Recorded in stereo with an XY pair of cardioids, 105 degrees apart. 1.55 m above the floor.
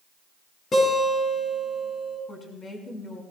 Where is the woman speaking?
35° left, 5 m.